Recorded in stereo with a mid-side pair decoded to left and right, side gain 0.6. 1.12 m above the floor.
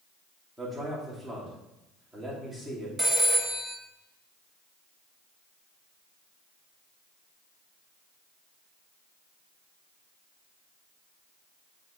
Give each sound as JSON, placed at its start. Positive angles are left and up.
{"t": 0.6, "sound": "a man speaking", "azimuth_deg": -15, "distance_m": 3.5}
{"t": 3.0, "sound": "a phone ringing", "azimuth_deg": -15, "distance_m": 1.7}